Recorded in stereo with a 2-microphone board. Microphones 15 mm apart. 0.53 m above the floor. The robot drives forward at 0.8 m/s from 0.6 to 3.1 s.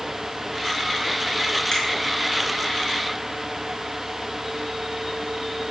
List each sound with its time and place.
1.7 s a finger snap: 60° left (ahead or behind), 5.5 m